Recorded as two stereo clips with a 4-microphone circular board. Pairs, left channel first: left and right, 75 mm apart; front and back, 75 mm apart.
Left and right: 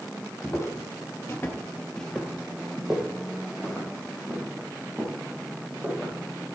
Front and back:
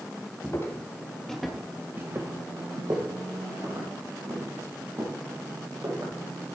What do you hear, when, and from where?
0.4 s footsteps: 40° left, 2 m; by 6.1 s 160° right, 6.5 m